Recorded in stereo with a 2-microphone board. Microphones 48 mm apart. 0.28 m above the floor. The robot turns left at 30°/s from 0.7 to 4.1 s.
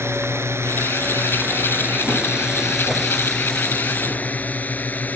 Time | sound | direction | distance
0.0 | a drone | 65° right (ahead or behind) | ?